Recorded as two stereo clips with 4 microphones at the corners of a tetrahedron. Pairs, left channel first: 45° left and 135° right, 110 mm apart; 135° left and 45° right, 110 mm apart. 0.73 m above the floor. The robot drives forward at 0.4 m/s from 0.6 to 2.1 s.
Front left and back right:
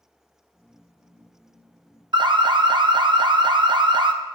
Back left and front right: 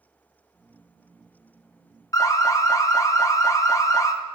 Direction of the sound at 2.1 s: 170° right.